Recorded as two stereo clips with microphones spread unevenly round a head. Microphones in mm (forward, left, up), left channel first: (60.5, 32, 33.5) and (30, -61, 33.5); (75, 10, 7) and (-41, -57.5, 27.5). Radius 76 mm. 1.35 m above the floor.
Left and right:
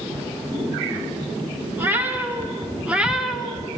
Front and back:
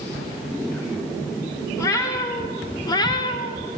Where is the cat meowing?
40° right, 2 m; by 3.7 s straight ahead, 0.8 m.